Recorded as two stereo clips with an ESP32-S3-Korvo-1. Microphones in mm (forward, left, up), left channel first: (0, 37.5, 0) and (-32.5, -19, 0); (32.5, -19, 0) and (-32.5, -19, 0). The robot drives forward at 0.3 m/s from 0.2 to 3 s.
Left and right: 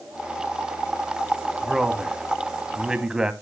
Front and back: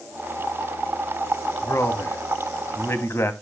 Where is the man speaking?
35° right, 2.5 m; by 3.3 s 45° right, 2 m.